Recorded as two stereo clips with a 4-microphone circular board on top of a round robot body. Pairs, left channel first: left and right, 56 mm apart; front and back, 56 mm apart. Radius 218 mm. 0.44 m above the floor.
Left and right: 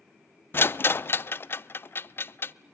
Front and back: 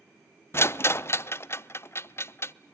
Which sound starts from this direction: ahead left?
A rattle, at 0.5 s.